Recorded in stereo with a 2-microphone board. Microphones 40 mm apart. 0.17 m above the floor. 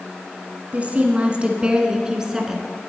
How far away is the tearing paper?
No tearing paper in this recording.